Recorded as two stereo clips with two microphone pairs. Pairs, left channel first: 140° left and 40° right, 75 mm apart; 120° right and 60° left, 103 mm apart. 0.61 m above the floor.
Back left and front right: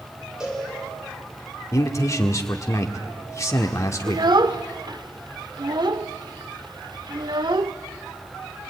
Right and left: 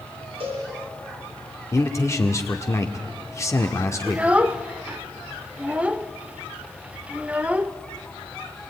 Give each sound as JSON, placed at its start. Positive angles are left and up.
{"t": 0.4, "sound": "a cowbell", "azimuth_deg": 40, "distance_m": 8.5}
{"t": 1.7, "sound": "a man speaking", "azimuth_deg": -175, "distance_m": 1.5}
{"t": 4.1, "sound": "a child speaking", "azimuth_deg": -15, "distance_m": 0.8}